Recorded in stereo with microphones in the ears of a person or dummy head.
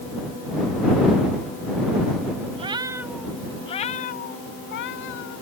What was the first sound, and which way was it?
A cat meowing, 30° right (ahead or behind).